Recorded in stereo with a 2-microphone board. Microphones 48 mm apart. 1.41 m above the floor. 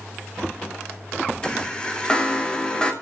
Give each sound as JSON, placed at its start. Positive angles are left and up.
{"t": 1.4, "sound": "a chime", "side_deg": 20, "distance_m": 3.0}